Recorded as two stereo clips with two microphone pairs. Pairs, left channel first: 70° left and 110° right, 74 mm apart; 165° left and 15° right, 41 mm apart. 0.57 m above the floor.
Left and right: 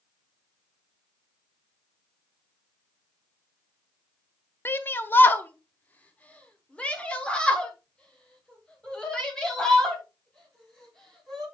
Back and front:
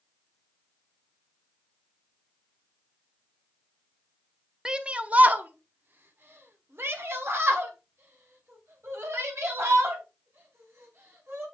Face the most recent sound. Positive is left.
turn(degrees=-10)